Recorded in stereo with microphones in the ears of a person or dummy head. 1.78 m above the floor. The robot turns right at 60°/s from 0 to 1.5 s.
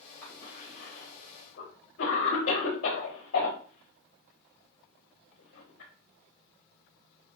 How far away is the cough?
About 5 m.